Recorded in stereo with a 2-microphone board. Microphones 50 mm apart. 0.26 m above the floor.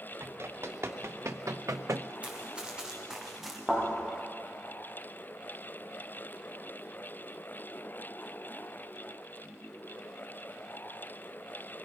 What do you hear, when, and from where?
0.2 s running footsteps: 55° right (ahead or behind), 3 m; by 2.1 s 50° right (ahead or behind), 0.7 m
2.2 s running footsteps: 25° right (ahead or behind), 4 m; by 3.6 s 5° right (ahead or behind), 3.5 m
3.7 s a thud: centre (ahead or behind), 9.5 m